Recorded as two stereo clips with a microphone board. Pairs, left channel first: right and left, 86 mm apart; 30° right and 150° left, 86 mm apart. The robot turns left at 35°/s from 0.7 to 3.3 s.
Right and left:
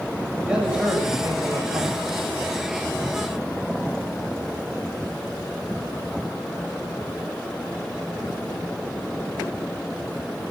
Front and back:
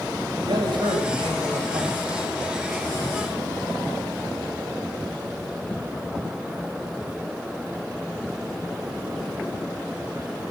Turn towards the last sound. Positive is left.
turn(degrees=80)